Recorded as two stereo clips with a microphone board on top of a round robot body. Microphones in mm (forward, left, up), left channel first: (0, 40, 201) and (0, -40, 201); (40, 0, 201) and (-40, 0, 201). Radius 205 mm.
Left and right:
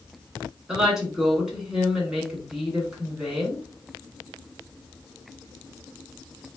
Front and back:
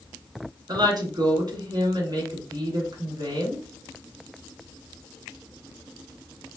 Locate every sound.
0.7 s a woman speaking: 170° right, 2 m